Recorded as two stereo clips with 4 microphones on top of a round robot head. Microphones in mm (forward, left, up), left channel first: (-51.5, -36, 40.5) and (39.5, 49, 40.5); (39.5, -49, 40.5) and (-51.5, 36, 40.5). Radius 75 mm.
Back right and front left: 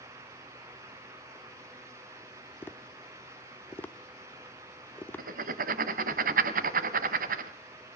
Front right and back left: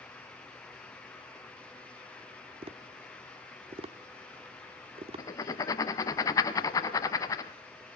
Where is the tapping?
155° left, 0.8 m.